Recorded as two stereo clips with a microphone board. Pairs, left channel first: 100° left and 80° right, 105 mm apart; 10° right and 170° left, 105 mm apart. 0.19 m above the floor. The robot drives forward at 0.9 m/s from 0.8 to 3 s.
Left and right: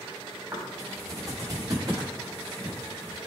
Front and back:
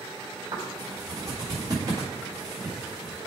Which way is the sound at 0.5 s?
140° right.